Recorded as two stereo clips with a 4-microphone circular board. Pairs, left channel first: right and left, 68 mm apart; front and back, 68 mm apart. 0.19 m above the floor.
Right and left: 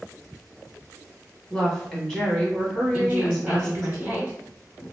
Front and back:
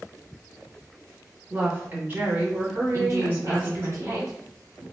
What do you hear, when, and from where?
1.5 s a woman speaking: 165° right, 1.2 m
2.9 s a woman speaking: 160° left, 1.7 m